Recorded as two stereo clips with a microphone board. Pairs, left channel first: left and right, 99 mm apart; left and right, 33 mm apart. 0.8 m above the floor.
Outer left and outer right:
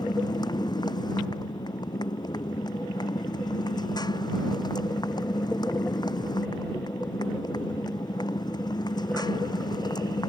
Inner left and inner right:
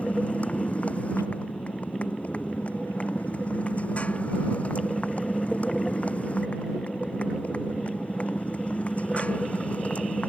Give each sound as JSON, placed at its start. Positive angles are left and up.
{"t": 0.0, "sound": "a motorcycle", "side_deg": 45}